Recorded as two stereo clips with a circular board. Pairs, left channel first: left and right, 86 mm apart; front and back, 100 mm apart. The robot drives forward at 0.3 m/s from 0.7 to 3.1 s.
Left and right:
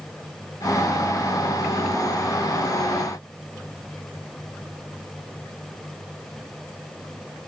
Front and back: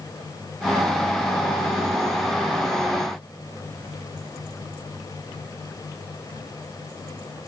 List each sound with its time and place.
Only background noise.